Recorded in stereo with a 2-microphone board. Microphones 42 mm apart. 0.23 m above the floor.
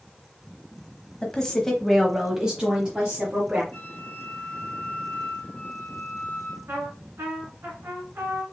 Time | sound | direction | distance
1.2 | a woman speaking | 20° left (ahead or behind) | 1.1 m
3.7 | a flute | 35° left (ahead or behind) | 1.1 m
6.7 | a trumpet | 65° right (ahead or behind) | 2 m